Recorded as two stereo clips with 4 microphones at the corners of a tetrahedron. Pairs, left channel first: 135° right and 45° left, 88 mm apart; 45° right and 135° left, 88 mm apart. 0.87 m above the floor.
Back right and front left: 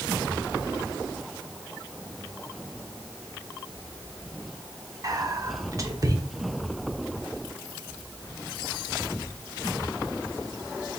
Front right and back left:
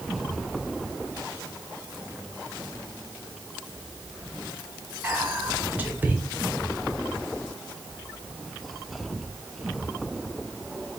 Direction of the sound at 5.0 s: 75° left.